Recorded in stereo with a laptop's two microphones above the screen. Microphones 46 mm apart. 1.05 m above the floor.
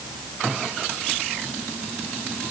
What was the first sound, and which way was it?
Only background noise.